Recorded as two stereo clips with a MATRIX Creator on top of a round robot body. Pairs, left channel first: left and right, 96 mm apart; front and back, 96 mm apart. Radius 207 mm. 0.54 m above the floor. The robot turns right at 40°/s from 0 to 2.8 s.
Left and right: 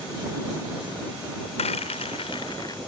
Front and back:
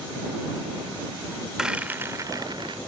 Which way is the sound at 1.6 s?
95° left.